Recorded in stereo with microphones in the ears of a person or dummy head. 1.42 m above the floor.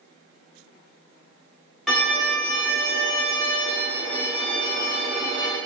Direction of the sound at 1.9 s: 5° right (ahead or behind).